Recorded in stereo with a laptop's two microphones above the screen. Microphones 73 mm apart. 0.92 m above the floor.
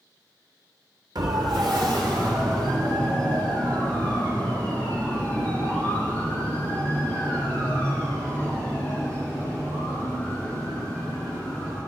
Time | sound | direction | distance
1.1 | a siren | 70° right (ahead or behind) | 3 m